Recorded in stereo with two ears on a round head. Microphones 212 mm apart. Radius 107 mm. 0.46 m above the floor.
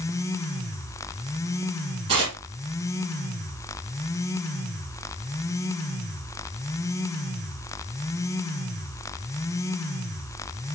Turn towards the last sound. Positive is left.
turn(degrees=-25)  # may be behind; listen again after turning